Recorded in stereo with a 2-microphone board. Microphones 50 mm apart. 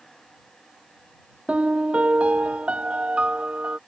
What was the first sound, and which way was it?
A piano, 25° right (ahead or behind).